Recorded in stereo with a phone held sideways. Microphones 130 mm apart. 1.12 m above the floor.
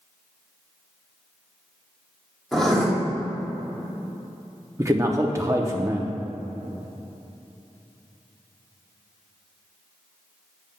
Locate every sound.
2.5 s writing: 5° left (ahead or behind), 2.5 m
4.8 s a man speaking: 20° right (ahead or behind), 0.7 m